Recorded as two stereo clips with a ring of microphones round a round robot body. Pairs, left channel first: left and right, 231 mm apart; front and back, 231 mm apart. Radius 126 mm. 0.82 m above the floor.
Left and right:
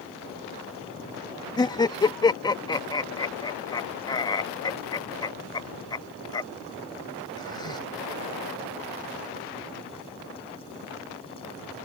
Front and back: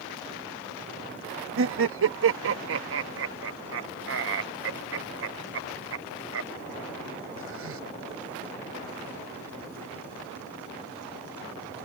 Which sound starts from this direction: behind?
Laughter, at 1.6 s.